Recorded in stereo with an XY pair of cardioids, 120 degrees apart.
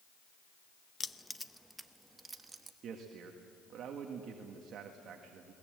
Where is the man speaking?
55° right, 1.8 m.